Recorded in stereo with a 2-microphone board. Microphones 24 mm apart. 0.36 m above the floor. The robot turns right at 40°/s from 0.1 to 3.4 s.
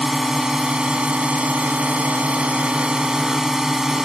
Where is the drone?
160° right; by 4.0 s 30° right.